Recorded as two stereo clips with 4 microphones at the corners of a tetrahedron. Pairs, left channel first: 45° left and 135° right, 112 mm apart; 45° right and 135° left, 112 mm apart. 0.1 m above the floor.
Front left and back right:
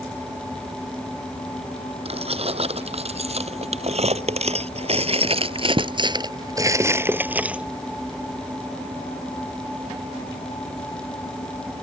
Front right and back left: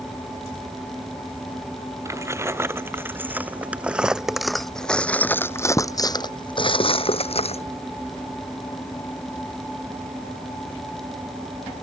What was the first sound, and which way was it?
Keys jangling, 160° right.